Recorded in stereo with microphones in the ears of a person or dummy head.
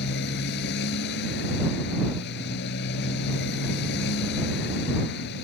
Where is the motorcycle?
60° left (ahead or behind).